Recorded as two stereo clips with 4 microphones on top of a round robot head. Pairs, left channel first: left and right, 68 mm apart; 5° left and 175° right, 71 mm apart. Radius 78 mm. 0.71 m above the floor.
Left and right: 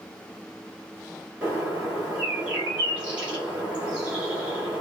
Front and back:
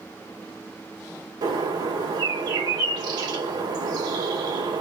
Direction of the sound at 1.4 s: 165° right.